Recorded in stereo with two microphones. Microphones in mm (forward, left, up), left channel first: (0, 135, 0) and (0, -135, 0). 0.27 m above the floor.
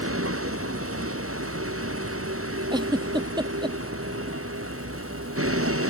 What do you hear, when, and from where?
0.0 s a vehicle: 55° right (ahead or behind)
2.7 s a giggle: 15° right (ahead or behind)